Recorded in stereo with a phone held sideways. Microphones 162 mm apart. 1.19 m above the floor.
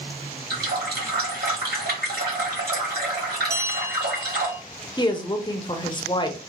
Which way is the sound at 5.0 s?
30° left (ahead or behind).